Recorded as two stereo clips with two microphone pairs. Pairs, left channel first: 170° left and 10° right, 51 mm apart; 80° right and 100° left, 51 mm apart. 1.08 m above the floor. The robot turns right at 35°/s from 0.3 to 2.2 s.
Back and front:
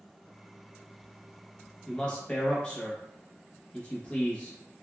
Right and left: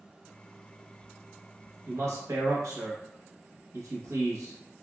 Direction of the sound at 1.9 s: 90° left.